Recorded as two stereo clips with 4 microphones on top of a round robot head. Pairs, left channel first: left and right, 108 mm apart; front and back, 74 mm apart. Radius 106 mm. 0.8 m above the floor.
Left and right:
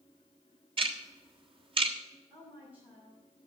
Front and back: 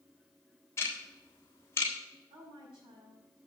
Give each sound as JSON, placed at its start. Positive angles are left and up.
{"t": 0.8, "sound": "ticking", "azimuth_deg": -55, "distance_m": 1.4}
{"t": 2.3, "sound": "a woman speaking", "azimuth_deg": -170, "distance_m": 6.0}